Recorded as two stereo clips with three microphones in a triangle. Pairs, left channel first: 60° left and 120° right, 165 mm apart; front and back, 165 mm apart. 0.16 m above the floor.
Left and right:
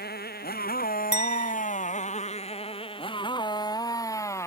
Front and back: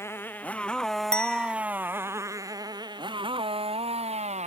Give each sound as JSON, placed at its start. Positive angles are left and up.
{"t": 0.0, "sound": "a motorcycle", "azimuth_deg": 75}
{"t": 1.1, "sound": "a clink", "azimuth_deg": 85}